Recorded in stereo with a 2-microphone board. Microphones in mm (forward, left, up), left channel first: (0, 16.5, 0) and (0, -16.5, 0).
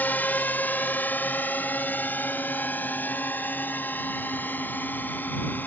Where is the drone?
70° left (ahead or behind); by 5.7 s 75° left (ahead or behind).